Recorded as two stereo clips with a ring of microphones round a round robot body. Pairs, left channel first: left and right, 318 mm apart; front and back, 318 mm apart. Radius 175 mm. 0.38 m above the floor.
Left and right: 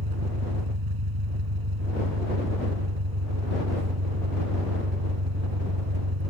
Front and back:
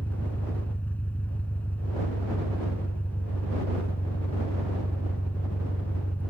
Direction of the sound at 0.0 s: 85° right.